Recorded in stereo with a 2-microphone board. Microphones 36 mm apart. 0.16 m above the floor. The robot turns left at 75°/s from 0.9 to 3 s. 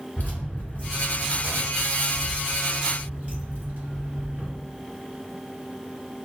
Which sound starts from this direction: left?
Keys jangling, at 0.2 s.